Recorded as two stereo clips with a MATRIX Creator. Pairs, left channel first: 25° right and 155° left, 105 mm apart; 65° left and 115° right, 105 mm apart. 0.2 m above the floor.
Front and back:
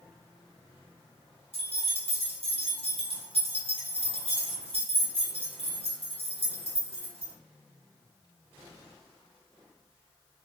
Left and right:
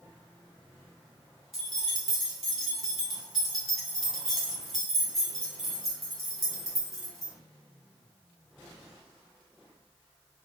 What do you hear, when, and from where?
1.5 s keys jangling: 160° left, 2 m